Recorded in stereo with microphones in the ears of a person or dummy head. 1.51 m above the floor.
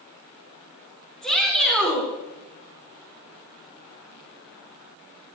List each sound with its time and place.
1.2 s a shout: 5° left (ahead or behind), 3.5 m